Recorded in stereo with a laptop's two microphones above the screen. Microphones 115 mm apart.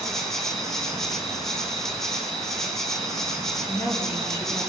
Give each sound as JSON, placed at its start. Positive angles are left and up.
{"t": 0.0, "sound": "an insect", "side_deg": 5, "distance_m": 4.5}
{"t": 3.7, "sound": "a woman speaking", "side_deg": 20, "distance_m": 3.5}